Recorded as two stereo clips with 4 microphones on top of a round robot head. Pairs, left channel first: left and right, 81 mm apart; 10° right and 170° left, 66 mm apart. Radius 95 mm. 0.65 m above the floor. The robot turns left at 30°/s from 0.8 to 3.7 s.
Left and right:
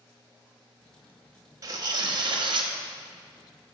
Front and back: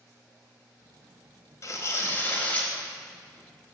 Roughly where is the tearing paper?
Ahead right.